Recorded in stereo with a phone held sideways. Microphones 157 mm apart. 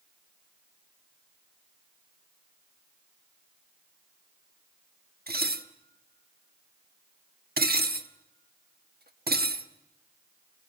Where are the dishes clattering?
80° right, 1.3 m.